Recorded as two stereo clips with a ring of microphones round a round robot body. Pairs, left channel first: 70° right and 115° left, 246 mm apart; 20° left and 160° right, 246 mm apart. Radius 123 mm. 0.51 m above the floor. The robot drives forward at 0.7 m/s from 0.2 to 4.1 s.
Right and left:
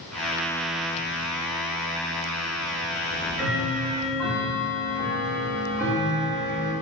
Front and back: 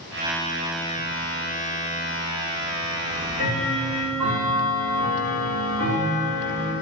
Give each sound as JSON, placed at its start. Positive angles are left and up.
{"t": 3.0, "sound": "ticking", "azimuth_deg": -160, "distance_m": 3.5}